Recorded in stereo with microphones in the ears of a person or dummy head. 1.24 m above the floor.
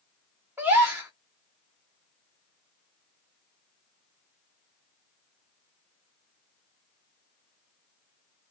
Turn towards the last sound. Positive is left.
turn(degrees=-10)  # may be behind; listen again after turning